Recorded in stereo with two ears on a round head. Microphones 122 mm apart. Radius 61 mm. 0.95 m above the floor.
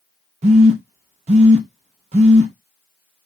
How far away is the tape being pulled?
No tape being pulled in this recording.